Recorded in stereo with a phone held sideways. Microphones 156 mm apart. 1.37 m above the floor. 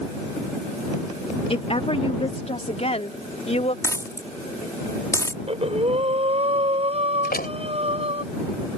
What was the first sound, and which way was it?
A woman speaking, 40° left (ahead or behind).